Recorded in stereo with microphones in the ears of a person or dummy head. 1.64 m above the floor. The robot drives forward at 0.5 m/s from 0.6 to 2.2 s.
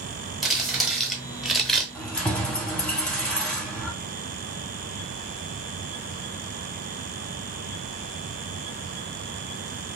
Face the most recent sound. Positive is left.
turn(degrees=5)  # may be behind; listen again after turning